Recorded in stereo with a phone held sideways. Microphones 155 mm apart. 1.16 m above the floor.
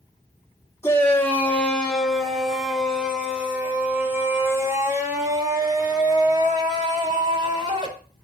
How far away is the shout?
About 3 m.